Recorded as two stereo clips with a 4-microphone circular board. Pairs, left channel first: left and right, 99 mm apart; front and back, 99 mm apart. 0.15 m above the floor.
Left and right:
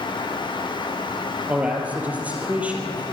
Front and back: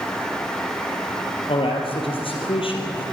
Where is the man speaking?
15° right, 4 m.